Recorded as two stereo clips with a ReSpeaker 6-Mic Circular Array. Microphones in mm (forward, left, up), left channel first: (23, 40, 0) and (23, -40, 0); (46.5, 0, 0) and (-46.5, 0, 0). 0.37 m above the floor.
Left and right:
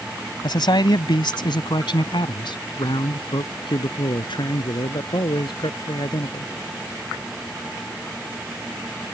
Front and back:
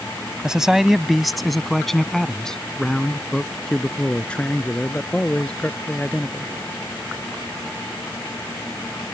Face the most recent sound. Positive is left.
turn(degrees=75)